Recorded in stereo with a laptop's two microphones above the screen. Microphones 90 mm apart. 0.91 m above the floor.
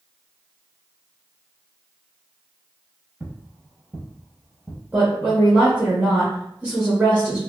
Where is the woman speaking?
10° right (ahead or behind), 0.9 m.